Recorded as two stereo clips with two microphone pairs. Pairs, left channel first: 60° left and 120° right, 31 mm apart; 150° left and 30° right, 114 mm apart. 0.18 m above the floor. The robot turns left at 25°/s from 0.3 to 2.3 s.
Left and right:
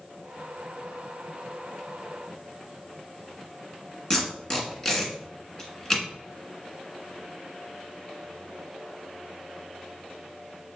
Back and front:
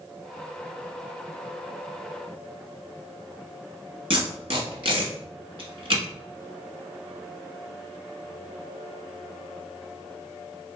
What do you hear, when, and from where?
4.1 s tape being pulled: 10° right, 1.3 m